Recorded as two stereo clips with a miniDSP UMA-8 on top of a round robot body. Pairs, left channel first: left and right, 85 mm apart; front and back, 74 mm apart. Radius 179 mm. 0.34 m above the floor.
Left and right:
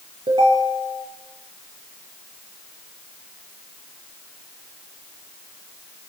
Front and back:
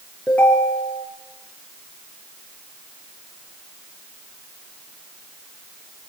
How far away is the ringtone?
About 5 m.